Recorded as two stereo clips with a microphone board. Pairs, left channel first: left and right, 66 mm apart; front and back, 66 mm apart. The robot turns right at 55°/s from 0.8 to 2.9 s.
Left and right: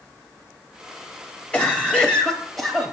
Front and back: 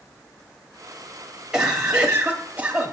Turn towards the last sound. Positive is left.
turn(degrees=-165)